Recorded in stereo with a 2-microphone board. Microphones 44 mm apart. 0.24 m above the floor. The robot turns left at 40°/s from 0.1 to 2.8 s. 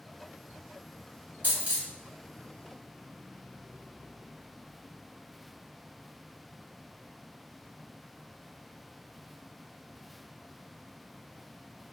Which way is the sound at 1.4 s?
45° right (ahead or behind).